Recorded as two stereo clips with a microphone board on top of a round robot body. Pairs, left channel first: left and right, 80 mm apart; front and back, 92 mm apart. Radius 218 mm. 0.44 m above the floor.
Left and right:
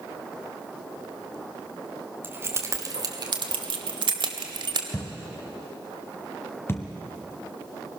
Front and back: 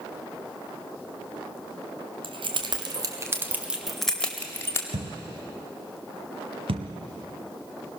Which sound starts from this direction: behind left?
A thud, at 4.9 s.